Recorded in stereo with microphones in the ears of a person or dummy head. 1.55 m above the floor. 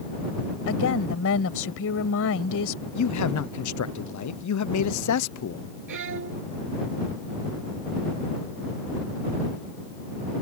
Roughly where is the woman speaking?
Left.